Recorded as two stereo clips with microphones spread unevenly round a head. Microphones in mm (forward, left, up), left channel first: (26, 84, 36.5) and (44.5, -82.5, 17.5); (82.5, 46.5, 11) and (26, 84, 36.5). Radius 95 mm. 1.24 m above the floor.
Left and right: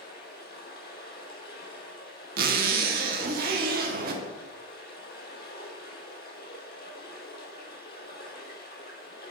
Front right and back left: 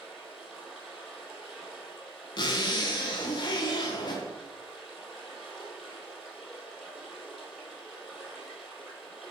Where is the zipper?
75° right, 0.8 m.